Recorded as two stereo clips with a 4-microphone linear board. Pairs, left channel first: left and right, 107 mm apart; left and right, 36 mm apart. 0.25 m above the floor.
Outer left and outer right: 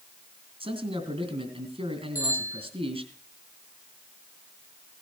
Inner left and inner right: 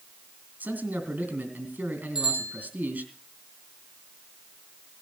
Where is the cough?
No cough in this recording.